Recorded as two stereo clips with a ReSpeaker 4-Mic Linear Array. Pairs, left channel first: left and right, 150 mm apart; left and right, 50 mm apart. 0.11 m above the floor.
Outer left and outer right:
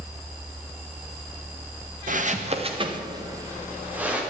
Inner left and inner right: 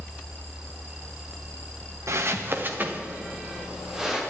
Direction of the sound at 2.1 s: 65° right (ahead or behind).